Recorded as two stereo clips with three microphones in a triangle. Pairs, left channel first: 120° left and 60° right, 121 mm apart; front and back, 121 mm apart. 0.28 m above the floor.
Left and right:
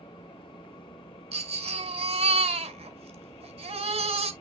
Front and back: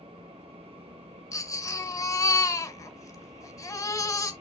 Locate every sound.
1.3 s a baby crying: 55° right, 1.7 m